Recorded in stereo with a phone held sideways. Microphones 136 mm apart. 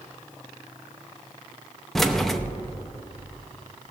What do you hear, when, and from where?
1.9 s keys jangling: 5° left (ahead or behind), 0.6 m